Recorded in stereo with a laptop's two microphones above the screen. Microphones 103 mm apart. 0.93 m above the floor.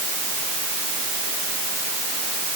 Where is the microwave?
I don't hear a microwave.